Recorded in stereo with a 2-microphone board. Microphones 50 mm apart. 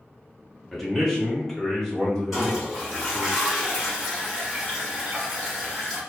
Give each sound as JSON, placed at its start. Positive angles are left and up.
{"t": 0.7, "sound": "a man speaking", "side_deg": 0, "distance_m": 1.0}
{"t": 2.3, "sound": "a toilet flushing", "side_deg": 0, "distance_m": 1.9}